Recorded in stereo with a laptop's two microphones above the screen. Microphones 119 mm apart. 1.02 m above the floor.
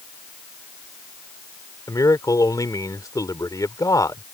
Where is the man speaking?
30° left (ahead or behind).